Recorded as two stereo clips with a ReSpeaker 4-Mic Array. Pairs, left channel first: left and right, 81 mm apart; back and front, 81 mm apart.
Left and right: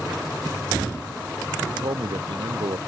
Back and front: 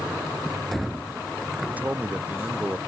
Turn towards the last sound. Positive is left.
turn(degrees=-75)